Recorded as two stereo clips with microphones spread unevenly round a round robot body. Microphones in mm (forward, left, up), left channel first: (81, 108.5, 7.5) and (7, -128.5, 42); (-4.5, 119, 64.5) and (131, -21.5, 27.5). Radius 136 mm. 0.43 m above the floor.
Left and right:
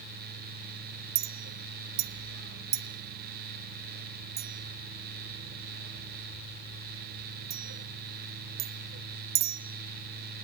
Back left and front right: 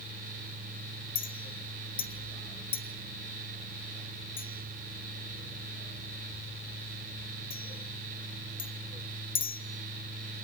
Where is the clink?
155° right, 1.0 m.